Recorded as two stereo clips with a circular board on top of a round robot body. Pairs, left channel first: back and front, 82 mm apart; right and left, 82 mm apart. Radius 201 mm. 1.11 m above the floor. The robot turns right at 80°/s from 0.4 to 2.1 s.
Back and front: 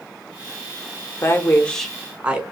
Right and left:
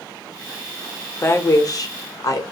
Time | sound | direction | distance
1.2 | a woman speaking | 140° right | 0.8 m